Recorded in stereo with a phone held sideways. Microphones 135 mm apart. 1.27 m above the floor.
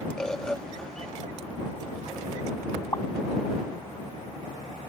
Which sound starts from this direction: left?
A pop, at 2.9 s.